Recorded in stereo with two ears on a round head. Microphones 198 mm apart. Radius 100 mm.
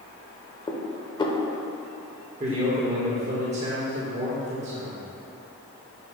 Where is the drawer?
No drawer in this recording.